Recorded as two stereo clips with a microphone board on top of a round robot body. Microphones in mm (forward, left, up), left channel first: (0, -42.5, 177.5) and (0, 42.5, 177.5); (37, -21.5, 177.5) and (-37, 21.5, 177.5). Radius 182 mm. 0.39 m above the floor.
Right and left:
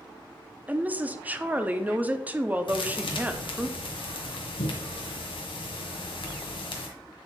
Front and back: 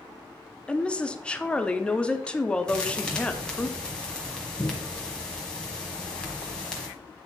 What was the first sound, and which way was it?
A woman speaking, 40° left.